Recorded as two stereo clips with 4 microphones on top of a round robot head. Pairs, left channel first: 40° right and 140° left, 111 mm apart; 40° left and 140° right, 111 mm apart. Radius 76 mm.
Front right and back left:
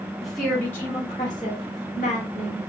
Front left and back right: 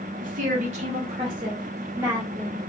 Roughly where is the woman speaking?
Behind right.